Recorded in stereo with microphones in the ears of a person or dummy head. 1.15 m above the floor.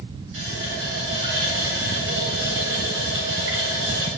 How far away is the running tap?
About 6 m.